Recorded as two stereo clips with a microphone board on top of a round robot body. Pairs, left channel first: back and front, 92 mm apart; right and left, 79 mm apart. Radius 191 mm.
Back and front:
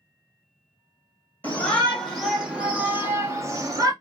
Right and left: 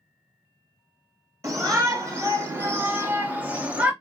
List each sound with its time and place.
1.4 s a shout: 115° left, 1.6 m; by 3.9 s 25° left, 1.7 m